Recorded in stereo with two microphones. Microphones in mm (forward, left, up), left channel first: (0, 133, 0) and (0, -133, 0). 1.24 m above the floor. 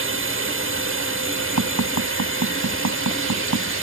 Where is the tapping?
90° right.